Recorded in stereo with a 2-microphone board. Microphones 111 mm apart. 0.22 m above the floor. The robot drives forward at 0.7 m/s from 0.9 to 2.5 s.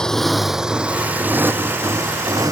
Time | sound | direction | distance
0.0 | a motorcycle | 5° left (ahead or behind) | ?